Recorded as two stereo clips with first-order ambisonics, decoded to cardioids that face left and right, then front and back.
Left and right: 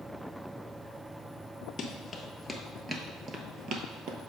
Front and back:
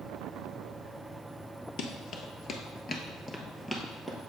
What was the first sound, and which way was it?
Running footsteps, 30° left.